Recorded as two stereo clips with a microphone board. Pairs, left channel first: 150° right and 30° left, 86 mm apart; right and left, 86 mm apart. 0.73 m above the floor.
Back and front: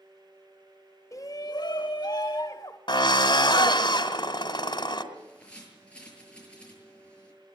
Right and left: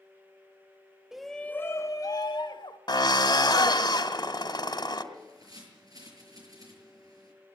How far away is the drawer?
No drawer in this recording.